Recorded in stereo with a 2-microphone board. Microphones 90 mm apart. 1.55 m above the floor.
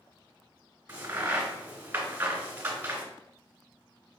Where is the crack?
25° right (ahead or behind), 1.7 m.